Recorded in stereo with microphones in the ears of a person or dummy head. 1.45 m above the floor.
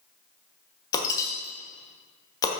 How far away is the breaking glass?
About 1.3 m.